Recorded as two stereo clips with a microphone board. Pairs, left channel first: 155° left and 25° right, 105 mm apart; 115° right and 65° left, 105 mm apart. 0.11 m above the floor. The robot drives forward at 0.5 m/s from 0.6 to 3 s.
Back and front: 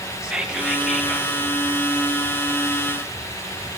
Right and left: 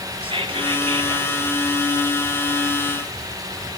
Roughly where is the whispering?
Ahead left.